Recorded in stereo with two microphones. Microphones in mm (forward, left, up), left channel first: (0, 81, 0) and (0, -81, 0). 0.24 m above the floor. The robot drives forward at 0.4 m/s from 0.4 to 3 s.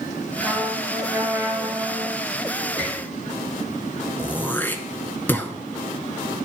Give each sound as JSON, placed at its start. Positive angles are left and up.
{"t": 0.4, "sound": "a trumpet", "side_deg": -10, "distance_m": 3.0}
{"t": 2.8, "sound": "a squeak", "side_deg": 40, "distance_m": 5.0}
{"t": 4.2, "sound": "throat clearing", "side_deg": 10, "distance_m": 0.7}